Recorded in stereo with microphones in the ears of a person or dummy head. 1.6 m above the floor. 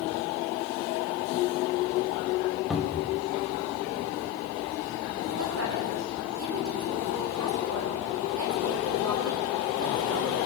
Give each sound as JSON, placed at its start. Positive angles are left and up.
{"t": 2.7, "sound": "a cupboard door", "side_deg": -5, "distance_m": 2.5}
{"t": 5.3, "sound": "a woman speaking", "side_deg": -70, "distance_m": 9.0}